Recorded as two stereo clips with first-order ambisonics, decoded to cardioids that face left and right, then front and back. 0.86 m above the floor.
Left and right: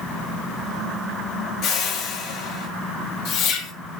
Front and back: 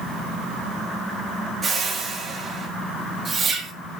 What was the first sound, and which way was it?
A whoosh, 105° left.